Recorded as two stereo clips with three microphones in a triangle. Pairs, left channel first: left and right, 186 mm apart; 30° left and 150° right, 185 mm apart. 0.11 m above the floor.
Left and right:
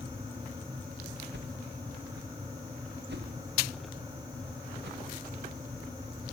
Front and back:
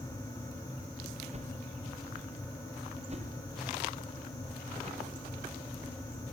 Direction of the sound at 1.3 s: 100° right.